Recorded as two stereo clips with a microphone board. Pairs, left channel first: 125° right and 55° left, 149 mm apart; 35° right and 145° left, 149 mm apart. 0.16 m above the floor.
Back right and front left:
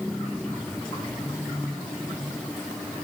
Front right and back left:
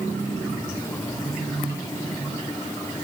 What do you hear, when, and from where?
Only background noise.